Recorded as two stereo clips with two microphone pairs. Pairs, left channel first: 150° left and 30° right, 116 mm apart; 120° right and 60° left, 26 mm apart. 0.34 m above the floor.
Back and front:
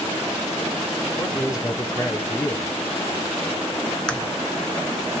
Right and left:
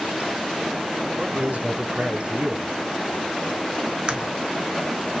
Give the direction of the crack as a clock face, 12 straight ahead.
10 o'clock.